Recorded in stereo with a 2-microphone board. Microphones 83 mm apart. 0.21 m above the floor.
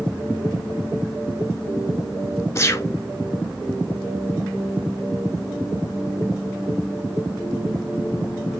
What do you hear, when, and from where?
2.5 s a gunshot: 35° left (ahead or behind), 0.5 m